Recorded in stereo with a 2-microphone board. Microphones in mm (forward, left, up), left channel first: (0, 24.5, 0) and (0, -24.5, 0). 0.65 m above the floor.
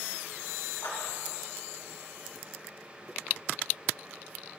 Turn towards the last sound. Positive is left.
turn(degrees=75)  # may be behind; listen again after turning